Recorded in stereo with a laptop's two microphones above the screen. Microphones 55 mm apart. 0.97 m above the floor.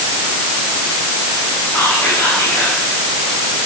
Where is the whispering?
55° left (ahead or behind), 6.5 m.